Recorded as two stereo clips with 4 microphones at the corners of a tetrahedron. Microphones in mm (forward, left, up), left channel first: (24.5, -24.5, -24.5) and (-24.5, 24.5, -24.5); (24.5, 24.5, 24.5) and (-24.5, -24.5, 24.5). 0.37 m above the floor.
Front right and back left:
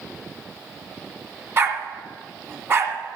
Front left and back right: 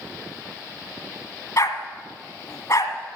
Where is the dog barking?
85° left, 1.5 m.